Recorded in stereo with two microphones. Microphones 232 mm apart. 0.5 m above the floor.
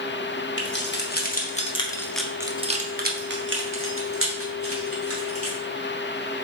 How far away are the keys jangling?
About 1.1 m.